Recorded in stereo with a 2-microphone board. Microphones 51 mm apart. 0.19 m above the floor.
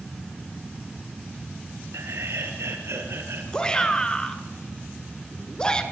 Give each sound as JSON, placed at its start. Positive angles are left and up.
{"t": 1.9, "sound": "laughter", "side_deg": -70, "distance_m": 4.5}
{"t": 3.5, "sound": "a shout", "side_deg": 15, "distance_m": 3.0}